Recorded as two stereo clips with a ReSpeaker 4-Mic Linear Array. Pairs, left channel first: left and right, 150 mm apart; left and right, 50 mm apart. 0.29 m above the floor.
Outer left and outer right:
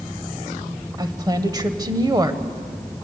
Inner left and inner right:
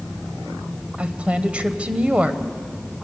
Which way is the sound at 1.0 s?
25° right (ahead or behind).